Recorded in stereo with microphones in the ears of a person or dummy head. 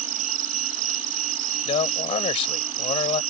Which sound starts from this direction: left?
A man speaking, at 1.6 s.